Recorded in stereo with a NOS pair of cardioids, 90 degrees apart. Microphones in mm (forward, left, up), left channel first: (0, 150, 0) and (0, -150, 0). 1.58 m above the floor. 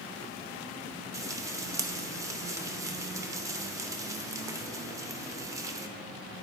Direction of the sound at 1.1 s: 10° right.